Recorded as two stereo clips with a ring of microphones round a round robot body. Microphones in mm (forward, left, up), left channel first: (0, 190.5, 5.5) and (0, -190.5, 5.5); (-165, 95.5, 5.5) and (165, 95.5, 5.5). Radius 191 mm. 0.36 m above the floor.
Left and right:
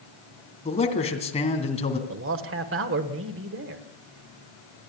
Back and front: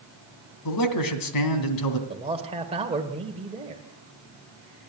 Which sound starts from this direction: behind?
A man speaking, at 0.7 s.